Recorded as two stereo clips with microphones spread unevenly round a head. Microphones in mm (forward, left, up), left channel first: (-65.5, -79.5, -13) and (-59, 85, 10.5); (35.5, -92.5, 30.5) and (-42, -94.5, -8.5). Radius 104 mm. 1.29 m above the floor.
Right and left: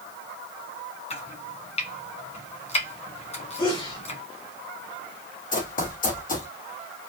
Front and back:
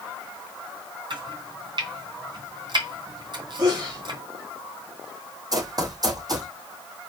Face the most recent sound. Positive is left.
turn(degrees=-130)